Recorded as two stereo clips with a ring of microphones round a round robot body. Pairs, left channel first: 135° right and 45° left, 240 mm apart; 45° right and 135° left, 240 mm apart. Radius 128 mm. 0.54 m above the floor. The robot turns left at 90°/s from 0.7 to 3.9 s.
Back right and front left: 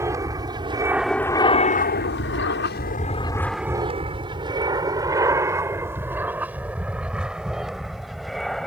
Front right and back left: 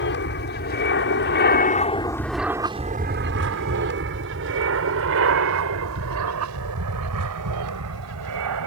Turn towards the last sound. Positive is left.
turn(degrees=135)